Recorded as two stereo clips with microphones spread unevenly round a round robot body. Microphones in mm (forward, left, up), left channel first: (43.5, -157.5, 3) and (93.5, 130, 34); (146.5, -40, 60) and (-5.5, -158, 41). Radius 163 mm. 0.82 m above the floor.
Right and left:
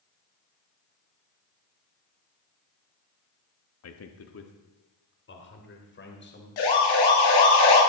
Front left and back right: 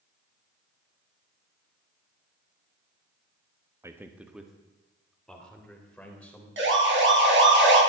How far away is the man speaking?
About 1.1 m.